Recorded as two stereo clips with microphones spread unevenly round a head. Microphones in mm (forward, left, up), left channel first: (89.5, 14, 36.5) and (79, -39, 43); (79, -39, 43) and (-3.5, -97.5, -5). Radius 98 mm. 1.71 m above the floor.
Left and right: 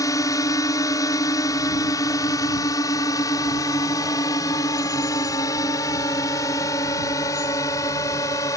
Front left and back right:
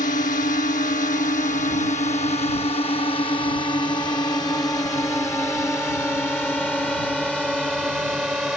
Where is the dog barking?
I don't hear a dog barking.